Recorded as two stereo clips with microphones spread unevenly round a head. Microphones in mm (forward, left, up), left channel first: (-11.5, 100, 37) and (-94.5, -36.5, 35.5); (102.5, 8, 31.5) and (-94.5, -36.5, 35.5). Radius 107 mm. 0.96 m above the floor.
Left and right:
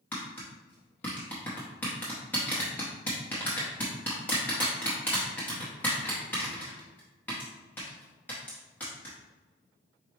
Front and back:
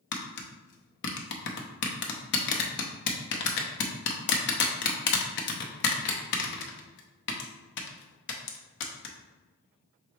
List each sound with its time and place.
0.1 s tapping: 25° right, 0.6 m